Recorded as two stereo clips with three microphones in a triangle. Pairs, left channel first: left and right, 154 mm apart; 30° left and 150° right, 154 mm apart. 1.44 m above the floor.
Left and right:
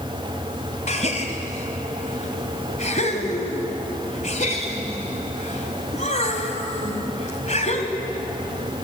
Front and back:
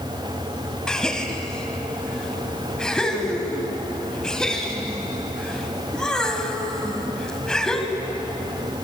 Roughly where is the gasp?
Behind left.